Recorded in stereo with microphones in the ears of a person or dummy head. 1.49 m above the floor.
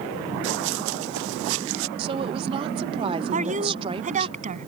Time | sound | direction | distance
0.4 | running footsteps | 70° right (ahead or behind) | ?
2.0 | a woman speaking | 30° right (ahead or behind) | ?
3.3 | a woman speaking | 40° right (ahead or behind) | ?